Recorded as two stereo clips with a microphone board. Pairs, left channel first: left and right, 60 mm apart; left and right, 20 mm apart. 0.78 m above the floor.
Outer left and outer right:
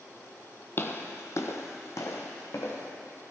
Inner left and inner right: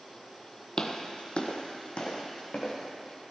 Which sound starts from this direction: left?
Footsteps, at 0.8 s.